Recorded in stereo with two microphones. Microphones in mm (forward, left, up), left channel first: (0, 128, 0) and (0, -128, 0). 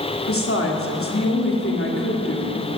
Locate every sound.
0.2 s a woman speaking: 55° left (ahead or behind), 2 m